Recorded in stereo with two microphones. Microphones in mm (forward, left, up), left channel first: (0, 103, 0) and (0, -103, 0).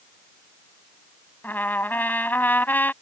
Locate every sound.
1.4 s a trumpet: 10° left (ahead or behind)